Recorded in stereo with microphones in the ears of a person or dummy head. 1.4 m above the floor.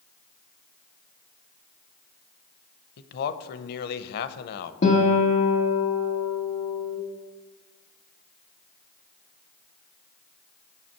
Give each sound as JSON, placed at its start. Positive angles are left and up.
{"t": 3.0, "sound": "a man speaking", "side_deg": 50, "distance_m": 0.8}
{"t": 4.8, "sound": "a guitar", "side_deg": 40, "distance_m": 1.9}